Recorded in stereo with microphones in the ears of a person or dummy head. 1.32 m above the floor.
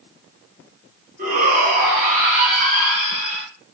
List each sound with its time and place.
1.2 s a shout: 55° right (ahead or behind), 2.5 m